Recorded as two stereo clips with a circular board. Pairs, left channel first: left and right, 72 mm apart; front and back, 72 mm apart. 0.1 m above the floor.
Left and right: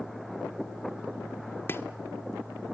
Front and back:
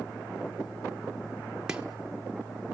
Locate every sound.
1.7 s chopping: 110° left, 1.2 m